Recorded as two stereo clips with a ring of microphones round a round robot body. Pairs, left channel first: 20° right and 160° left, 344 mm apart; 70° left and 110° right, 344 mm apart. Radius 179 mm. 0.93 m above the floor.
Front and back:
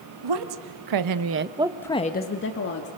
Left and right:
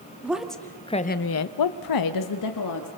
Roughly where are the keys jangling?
No keys jangling in this recording.